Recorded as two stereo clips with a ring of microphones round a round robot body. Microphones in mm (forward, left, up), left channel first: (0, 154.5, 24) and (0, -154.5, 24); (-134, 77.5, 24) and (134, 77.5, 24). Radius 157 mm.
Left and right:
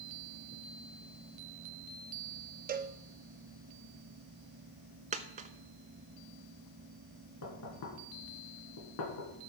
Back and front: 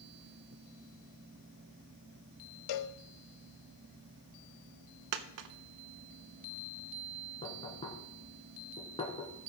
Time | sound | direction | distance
2.7 | a cowbell | 155° right | 0.5 m
5.1 | a dropped coin | 20° right | 0.5 m
7.4 | knocking | 110° left | 3 m